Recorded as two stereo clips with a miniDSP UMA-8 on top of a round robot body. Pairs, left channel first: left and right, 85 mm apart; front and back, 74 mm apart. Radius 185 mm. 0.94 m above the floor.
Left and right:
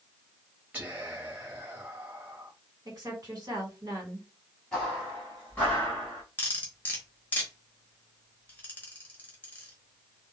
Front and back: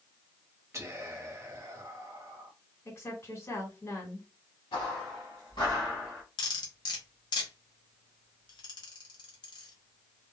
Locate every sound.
0.7 s whispering: 150° right, 1.0 m
2.9 s a woman speaking: 55° right, 1.7 m
4.7 s footsteps: 5° left, 1.6 m; by 6.2 s 95° left, 0.9 m
6.4 s cutlery clinking: 20° left, 0.9 m